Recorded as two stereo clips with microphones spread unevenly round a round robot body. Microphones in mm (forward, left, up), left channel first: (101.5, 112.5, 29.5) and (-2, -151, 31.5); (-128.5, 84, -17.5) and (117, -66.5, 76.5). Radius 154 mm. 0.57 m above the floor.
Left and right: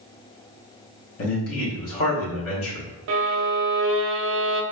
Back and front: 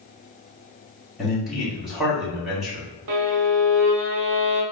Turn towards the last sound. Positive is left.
turn(degrees=-65)